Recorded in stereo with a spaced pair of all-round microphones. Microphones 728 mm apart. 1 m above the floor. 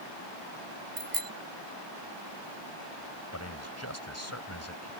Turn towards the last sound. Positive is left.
turn(degrees=20)  # may be behind; listen again after turning